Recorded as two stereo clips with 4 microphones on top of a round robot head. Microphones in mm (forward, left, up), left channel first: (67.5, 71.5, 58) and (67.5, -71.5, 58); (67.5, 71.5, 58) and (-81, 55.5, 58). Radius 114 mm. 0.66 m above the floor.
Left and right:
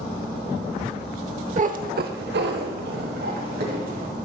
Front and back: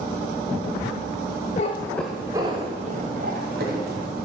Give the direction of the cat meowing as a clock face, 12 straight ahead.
2 o'clock.